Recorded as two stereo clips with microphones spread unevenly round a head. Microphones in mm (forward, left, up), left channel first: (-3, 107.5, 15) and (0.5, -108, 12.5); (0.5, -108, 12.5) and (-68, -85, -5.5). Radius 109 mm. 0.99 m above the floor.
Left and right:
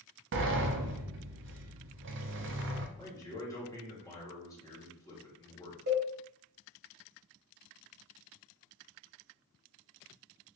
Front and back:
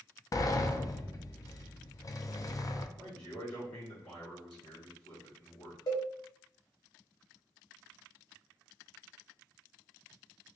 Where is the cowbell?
40° right, 2 m.